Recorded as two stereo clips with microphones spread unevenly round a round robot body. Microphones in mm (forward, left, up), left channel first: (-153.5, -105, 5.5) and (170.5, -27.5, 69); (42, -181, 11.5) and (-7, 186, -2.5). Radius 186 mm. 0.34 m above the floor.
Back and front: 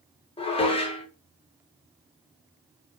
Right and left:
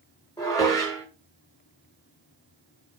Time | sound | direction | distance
0.4 | dishes clattering | 155° right | 0.6 m